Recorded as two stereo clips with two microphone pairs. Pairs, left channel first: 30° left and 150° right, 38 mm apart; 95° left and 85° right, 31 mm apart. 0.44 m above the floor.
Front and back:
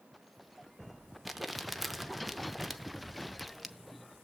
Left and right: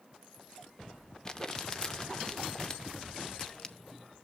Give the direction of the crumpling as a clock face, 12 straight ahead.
8 o'clock.